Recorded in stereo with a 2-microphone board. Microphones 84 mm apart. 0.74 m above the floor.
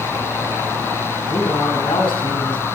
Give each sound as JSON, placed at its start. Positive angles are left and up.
{"t": 1.3, "sound": "a man speaking", "side_deg": 75, "distance_m": 6.0}